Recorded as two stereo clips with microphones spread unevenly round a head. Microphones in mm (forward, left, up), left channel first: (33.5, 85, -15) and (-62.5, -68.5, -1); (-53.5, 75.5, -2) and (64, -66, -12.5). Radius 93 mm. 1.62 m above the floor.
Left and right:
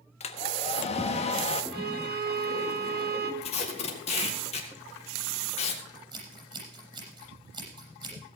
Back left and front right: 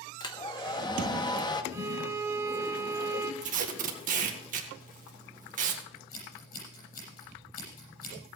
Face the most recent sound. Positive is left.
turn(degrees=175)